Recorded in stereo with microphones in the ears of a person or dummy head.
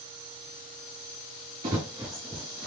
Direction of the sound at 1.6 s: 20° right (ahead or behind).